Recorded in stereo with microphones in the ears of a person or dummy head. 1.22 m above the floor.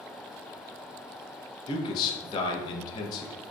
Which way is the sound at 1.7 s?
40° left (ahead or behind).